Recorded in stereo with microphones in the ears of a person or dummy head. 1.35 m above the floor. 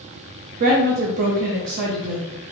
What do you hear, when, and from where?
0.6 s a woman speaking: 50° right (ahead or behind), 0.6 m